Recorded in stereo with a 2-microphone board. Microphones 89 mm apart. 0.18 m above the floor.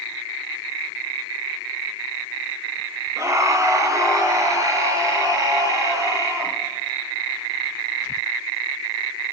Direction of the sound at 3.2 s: 35° right (ahead or behind).